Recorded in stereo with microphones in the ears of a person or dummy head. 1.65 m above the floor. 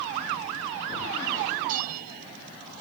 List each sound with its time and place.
1.7 s a bell: 45° right (ahead or behind)